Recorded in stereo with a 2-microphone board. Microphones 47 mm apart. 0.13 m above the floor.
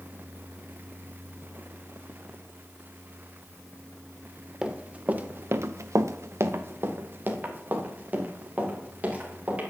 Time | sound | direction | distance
4.6 | running footsteps | 15° right (ahead or behind) | 1.7 m